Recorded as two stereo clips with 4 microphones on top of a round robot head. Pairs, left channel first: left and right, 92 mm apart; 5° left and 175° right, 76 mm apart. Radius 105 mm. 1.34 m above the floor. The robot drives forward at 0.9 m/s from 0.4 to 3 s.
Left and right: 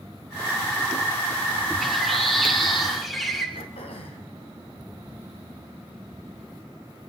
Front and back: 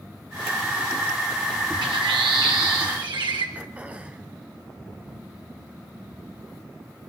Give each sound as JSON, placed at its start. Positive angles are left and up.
{"t": 1.8, "sound": "a bird", "azimuth_deg": 180, "distance_m": 2.0}
{"t": 3.5, "sound": "throat clearing", "azimuth_deg": 115, "distance_m": 2.0}